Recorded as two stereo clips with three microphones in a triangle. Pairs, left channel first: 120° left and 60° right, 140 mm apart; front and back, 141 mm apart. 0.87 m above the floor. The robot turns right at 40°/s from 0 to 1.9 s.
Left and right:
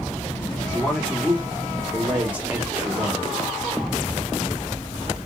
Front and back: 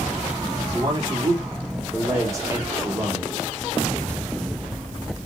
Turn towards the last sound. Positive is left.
turn(degrees=-130)